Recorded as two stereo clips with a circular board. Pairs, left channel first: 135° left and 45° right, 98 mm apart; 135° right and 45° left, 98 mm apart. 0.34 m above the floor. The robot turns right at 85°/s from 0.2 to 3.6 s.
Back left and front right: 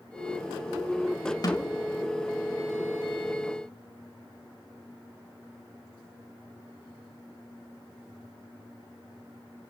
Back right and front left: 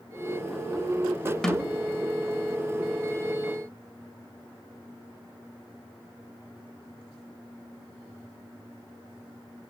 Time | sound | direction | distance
1.4 | a snare drum | 140° left | 1.7 m